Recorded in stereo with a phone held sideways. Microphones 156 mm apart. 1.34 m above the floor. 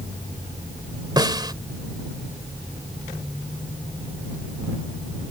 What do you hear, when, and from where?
1.2 s a snare drum: 25° right (ahead or behind)